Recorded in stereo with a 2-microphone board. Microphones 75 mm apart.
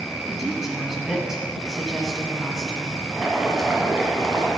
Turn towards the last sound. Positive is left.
turn(degrees=-5)  # may be behind; listen again after turning